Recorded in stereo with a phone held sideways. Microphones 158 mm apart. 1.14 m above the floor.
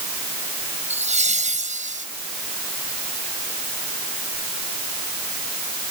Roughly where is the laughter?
Right.